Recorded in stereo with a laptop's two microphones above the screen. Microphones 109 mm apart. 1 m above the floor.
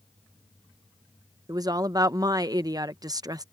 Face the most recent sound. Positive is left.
turn(degrees=-35)  # may be behind; listen again after turning